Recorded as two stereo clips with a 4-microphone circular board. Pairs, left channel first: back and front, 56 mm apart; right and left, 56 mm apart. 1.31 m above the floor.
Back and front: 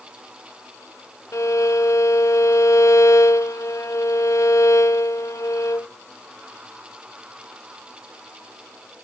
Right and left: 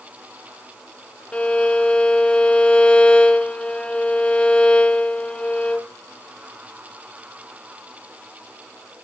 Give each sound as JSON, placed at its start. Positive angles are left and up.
{"t": 1.3, "sound": "a violin", "azimuth_deg": -155, "distance_m": 0.5}